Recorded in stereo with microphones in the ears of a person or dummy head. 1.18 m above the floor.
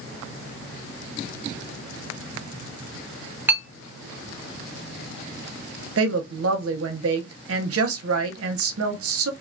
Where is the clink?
15° right (ahead or behind), 0.6 m.